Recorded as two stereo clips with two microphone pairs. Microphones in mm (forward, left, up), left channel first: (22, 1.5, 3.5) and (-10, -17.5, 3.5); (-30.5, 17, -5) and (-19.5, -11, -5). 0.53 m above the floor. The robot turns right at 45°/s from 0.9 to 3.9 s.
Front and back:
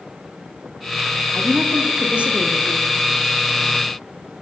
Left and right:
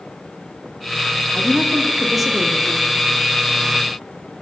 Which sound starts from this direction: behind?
A woman speaking, at 1.3 s.